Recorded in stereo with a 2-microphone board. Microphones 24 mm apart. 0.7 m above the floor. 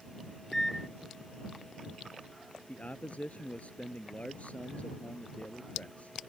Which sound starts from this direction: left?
A man speaking, at 2.7 s.